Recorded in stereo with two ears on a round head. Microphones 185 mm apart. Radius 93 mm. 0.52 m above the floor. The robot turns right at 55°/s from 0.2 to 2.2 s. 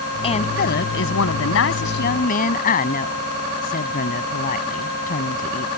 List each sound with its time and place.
0.2 s a woman speaking: 30° left; by 5.7 s 135° left